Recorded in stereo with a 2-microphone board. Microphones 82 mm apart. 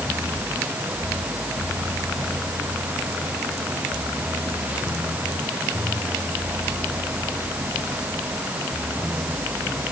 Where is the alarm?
I don't hear an alarm.